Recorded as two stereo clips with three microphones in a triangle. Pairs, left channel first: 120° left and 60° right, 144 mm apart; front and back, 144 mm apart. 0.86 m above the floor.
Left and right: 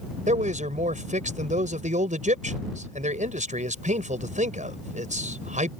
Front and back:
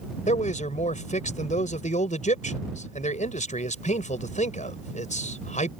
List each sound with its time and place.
0.3 s a man speaking: 30° right